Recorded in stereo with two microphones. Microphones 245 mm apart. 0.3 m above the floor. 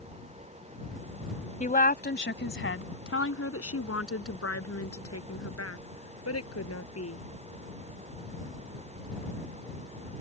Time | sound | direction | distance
1.6 | a woman speaking | 30° left (ahead or behind) | ?